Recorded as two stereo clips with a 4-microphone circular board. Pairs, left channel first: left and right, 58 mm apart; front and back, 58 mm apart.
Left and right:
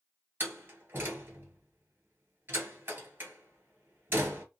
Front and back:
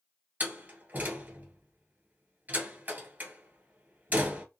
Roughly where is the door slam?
Behind right.